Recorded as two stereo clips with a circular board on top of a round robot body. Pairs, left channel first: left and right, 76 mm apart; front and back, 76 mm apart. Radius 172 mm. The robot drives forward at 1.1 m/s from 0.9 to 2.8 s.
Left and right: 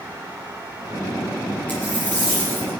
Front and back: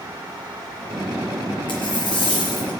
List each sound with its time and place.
1.7 s a dropped coin: 20° left, 4.5 m; by 2.7 s 25° left, 3.5 m